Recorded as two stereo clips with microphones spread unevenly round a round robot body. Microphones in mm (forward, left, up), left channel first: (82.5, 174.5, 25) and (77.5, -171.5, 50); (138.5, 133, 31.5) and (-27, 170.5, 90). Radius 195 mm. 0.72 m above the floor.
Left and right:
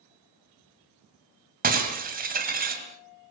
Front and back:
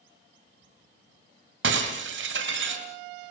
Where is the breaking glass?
160° right, 2 m.